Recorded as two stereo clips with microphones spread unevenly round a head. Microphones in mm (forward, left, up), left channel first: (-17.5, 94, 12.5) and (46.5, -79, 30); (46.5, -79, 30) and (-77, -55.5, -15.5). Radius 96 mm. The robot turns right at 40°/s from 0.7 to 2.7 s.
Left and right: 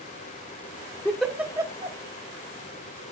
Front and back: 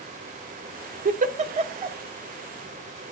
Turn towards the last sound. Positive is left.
turn(degrees=-100)